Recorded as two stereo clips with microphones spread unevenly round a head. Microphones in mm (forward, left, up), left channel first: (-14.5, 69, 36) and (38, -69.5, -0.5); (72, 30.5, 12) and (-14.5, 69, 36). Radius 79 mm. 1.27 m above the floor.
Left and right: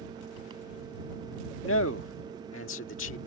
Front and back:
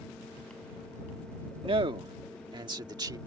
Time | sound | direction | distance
1.6 | a man speaking | 120° left | ?